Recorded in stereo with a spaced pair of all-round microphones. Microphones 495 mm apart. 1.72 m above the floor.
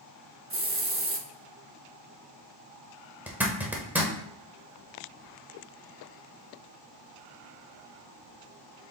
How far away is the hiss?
About 0.7 m.